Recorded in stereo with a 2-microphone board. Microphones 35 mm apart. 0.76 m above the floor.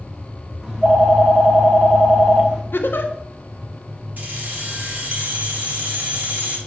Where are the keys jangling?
50° right (ahead or behind), 2 m.